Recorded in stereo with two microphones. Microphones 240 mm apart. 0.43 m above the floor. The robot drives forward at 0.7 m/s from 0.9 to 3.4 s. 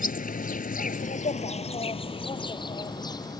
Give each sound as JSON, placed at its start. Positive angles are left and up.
{"t": 0.0, "sound": "an insect", "side_deg": 35}